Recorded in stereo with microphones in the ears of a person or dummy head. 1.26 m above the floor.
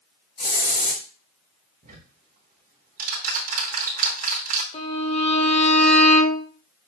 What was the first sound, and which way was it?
A hiss, 50° left (ahead or behind).